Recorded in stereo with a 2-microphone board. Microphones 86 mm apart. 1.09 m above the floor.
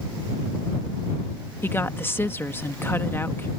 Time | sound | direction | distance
1.6 | a woman speaking | 25° left (ahead or behind) | ?